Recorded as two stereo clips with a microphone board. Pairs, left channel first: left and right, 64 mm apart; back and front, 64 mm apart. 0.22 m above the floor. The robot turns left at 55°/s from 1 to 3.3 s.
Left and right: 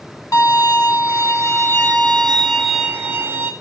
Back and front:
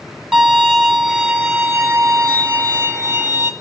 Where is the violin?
80° left, 1.7 m; by 3.5 s 45° right, 1.7 m.